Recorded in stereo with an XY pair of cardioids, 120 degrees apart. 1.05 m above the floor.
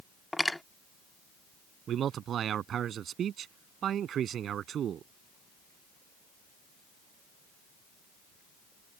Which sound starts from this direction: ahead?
Cutlery clinking, at 0.3 s.